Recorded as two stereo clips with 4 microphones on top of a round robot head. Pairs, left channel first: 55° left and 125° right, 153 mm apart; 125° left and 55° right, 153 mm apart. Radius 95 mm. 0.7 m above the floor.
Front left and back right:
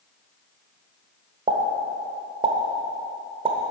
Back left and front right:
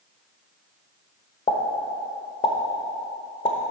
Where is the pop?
Straight behind, 1.0 m.